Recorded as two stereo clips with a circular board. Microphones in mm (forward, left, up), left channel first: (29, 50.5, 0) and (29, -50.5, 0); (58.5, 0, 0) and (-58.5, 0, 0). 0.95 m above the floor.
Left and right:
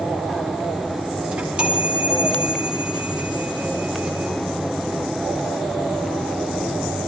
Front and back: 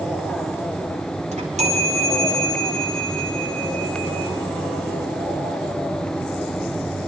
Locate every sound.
1.3 s a chime: 170° right, 4.5 m